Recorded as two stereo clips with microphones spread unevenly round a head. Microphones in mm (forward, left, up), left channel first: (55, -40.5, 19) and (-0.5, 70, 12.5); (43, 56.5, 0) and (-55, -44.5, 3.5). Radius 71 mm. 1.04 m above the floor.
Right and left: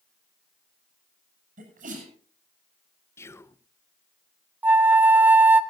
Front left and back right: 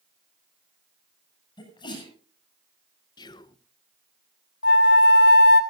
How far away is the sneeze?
About 7.5 m.